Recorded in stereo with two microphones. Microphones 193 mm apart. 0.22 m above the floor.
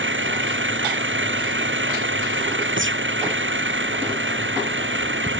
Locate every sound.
0.0 s an engine running: 85° right
2.8 s a gunshot: 85° right